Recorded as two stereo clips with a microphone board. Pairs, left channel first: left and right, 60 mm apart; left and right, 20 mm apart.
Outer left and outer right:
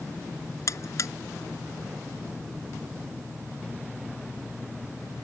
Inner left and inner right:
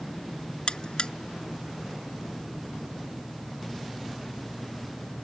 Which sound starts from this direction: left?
A buzzer, at 0.7 s.